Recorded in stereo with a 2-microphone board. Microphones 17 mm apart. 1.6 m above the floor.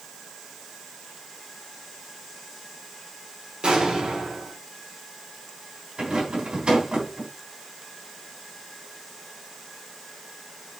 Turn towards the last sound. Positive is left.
turn(degrees=-70)  # may be behind; listen again after turning